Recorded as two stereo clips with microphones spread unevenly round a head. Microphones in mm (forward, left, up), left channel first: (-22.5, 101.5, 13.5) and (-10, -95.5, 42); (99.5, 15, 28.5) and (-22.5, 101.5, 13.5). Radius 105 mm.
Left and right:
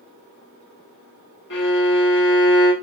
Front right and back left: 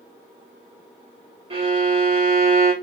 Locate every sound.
1.5 s a violin: 100° left, 1.5 m